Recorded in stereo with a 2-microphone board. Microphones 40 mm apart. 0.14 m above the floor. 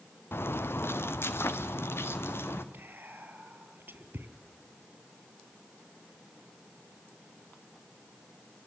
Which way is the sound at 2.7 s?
60° right (ahead or behind).